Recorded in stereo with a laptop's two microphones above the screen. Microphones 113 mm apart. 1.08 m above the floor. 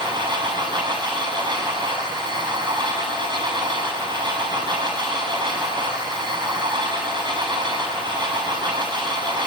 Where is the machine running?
40° right (ahead or behind), 7 m.